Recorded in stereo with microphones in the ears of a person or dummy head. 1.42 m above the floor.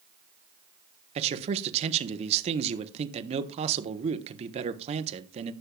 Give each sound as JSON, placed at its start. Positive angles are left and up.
{"t": 1.1, "sound": "a man speaking", "side_deg": -40, "distance_m": 1.1}